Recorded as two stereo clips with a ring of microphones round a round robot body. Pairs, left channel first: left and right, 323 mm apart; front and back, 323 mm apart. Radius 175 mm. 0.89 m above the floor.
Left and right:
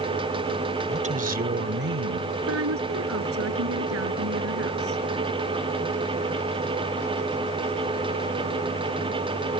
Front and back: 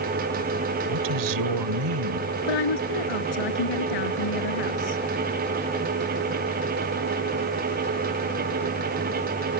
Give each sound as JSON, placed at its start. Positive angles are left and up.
{"t": 0.9, "sound": "a woman speaking", "azimuth_deg": -160}
{"t": 2.5, "sound": "a woman speaking", "azimuth_deg": -35}